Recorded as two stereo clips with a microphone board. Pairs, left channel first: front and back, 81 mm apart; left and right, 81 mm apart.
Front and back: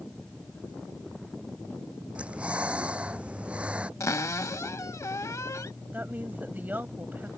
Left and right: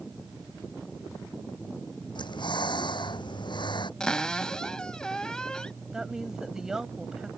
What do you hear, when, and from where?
2.1 s breathing: 105° left
4.0 s a cupboard door: 15° left
5.9 s a woman speaking: 160° right